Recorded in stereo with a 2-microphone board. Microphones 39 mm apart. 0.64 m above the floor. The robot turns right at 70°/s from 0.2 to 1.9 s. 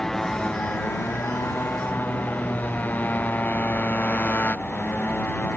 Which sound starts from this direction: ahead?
A motorcycle, at 0.0 s.